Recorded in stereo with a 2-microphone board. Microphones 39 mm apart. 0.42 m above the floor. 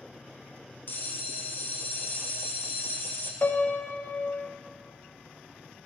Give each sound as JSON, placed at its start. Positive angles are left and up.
{"t": 0.9, "sound": "a bell", "side_deg": 60, "distance_m": 1.1}
{"t": 3.4, "sound": "a piano", "side_deg": 45, "distance_m": 0.5}